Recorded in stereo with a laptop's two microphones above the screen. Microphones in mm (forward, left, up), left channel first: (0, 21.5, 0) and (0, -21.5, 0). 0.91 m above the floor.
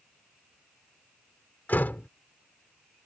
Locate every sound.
1.7 s a door slam: 45° left (ahead or behind)